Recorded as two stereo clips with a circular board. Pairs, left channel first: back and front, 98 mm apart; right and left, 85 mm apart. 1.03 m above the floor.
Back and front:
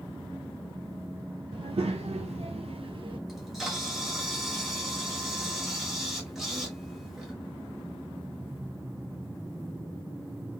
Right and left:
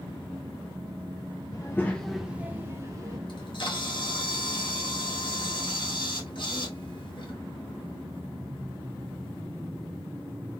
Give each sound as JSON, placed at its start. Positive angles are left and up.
{"t": 1.5, "sound": "a child speaking", "azimuth_deg": -40, "distance_m": 0.5}
{"t": 3.3, "sound": "a camera shutter", "azimuth_deg": -85, "distance_m": 1.3}